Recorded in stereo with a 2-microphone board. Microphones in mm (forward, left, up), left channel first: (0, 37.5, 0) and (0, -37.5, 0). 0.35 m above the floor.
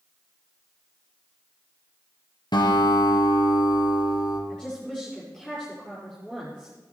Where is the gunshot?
No gunshot in this recording.